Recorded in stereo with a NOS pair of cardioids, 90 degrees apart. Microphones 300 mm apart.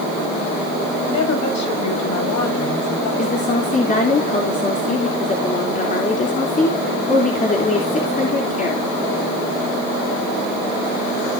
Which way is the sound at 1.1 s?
65° left.